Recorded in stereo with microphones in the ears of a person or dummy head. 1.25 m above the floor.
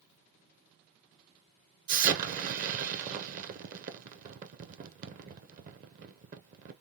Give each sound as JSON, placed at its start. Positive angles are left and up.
{"t": 1.9, "sound": "an explosion", "side_deg": -45, "distance_m": 0.9}